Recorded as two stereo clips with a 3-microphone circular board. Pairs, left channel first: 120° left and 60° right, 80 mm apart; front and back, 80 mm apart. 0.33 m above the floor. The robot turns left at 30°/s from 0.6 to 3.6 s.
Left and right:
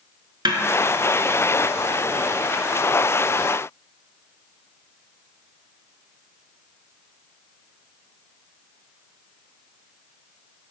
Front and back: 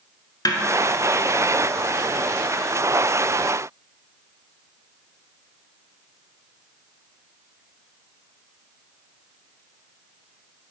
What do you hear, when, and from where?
0.5 s a snare drum: 40° right, 0.7 m